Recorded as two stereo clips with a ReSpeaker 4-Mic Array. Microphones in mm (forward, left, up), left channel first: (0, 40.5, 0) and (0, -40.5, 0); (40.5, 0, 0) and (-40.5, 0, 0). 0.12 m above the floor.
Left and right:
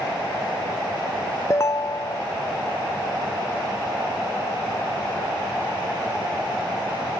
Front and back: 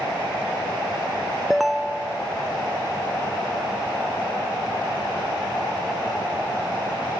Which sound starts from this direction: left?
A ringtone, at 1.5 s.